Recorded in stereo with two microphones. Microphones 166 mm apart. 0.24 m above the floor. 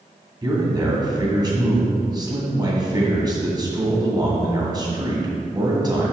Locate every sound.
0.4 s a man speaking: 25° right (ahead or behind), 2 m